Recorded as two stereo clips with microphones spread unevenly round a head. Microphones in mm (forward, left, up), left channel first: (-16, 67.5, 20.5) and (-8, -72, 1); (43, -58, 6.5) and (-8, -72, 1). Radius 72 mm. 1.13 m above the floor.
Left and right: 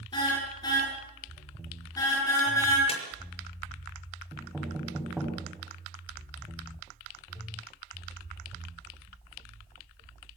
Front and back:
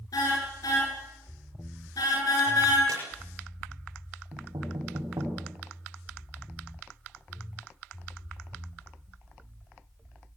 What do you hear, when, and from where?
0.1 s a car horn: 30° left, 10 m; by 2.8 s 20° left, 9 m
2.9 s a squeak: 140° left, 5.5 m
4.3 s knocking: 175° right, 7 m